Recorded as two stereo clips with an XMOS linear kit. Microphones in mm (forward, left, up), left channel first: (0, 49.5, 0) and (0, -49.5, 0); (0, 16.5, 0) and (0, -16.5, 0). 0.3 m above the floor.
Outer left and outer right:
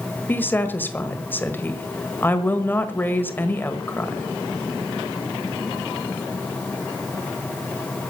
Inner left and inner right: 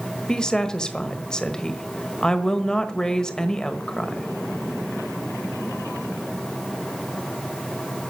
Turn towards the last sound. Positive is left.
turn(degrees=20)  # may be behind; listen again after turning